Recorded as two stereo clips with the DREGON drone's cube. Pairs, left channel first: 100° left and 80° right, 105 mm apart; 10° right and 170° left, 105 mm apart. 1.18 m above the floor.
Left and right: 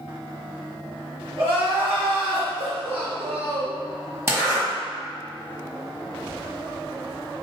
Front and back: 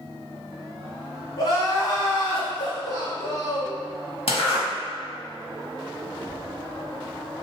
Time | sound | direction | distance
1.4 | crying | 60° right | 1.7 m
4.3 | a zipper | 15° right | 1.6 m